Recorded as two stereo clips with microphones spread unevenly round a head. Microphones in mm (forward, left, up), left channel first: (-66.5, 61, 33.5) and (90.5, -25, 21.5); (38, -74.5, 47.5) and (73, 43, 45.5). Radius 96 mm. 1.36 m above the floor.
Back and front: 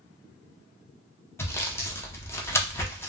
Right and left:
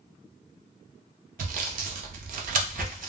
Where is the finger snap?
No finger snap in this recording.